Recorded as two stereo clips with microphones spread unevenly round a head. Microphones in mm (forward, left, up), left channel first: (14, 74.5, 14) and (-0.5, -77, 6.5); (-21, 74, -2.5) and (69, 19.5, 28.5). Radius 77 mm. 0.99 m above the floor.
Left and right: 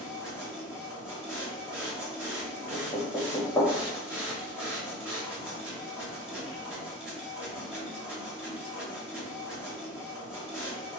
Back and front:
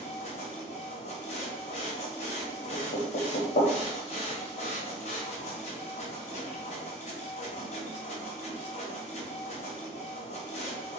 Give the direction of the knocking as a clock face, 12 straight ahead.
7 o'clock.